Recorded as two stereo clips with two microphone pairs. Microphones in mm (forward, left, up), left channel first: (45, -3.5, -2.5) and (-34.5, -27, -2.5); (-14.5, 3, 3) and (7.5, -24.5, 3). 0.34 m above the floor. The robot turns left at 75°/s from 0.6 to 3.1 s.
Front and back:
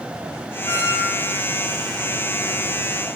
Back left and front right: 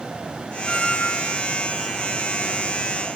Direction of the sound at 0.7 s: 65° left.